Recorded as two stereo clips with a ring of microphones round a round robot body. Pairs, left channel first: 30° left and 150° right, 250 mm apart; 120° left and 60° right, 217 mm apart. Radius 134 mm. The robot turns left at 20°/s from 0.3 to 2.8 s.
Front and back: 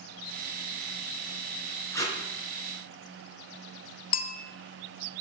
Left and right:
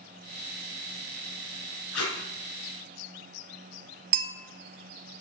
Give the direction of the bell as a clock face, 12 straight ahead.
12 o'clock.